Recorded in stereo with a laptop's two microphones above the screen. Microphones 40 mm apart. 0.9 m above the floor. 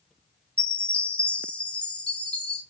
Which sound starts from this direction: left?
A chime, at 0.6 s.